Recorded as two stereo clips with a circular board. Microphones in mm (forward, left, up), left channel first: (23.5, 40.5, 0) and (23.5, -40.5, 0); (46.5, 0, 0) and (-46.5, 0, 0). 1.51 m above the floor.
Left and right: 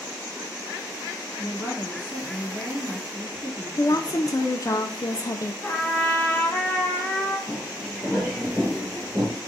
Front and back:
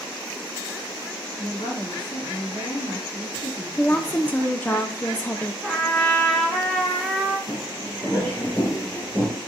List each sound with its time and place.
1.4 s a woman speaking: 25° right, 3 m
3.8 s a woman speaking: 65° left, 0.5 m
5.6 s a trumpet: 70° left, 1.0 m
7.5 s footsteps: 10° left, 2.0 m; by 9.4 s 125° right, 1.7 m